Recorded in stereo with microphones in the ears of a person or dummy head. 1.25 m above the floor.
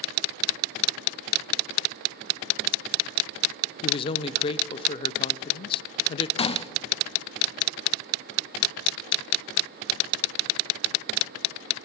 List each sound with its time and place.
3.8 s a man speaking: 25° left (ahead or behind), 0.6 m
6.4 s a gunshot: 30° left (ahead or behind), 0.6 m